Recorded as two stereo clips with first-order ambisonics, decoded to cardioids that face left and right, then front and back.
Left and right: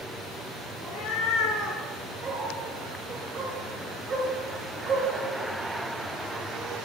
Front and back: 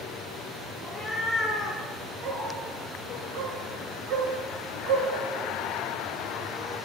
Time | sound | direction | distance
0.8 | a cat meowing | 90° left | 1.9 m
2.2 | a dog barking | 155° right | 1.6 m